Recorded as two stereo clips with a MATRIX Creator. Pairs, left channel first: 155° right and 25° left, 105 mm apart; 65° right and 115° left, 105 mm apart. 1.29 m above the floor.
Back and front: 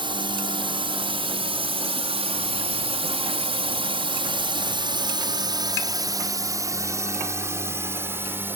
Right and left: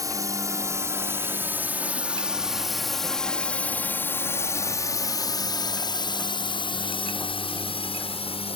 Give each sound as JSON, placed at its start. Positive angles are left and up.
{"t": 0.0, "sound": "a drone", "azimuth_deg": 60}